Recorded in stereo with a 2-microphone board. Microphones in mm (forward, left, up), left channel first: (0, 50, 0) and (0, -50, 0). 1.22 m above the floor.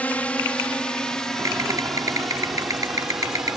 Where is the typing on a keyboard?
40° right (ahead or behind).